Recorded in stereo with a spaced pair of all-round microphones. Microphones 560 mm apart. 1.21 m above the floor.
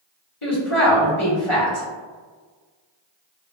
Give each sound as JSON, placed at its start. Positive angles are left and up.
{"t": 0.4, "sound": "a woman speaking", "side_deg": 60, "distance_m": 1.2}